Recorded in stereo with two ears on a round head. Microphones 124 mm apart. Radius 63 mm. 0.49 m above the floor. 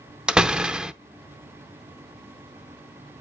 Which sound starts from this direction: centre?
A door slam, at 0.3 s.